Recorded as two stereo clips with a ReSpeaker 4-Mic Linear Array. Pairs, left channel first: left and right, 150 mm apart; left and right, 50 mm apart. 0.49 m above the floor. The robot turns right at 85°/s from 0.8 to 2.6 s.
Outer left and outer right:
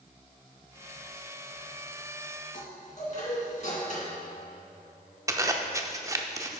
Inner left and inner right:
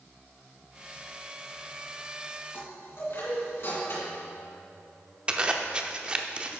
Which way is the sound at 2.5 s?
60° left (ahead or behind).